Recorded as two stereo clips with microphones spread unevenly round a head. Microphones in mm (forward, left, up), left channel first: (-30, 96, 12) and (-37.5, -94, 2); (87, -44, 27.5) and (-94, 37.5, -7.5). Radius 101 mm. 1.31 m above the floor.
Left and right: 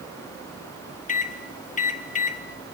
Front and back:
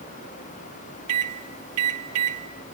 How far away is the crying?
I don't hear crying.